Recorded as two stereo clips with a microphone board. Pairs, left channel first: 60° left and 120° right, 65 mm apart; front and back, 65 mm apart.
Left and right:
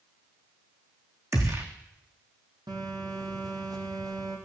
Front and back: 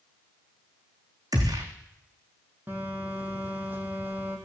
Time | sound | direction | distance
1.3 | a gunshot | 155° right | 4.5 m
2.7 | a phone buzzing | 115° right | 5.5 m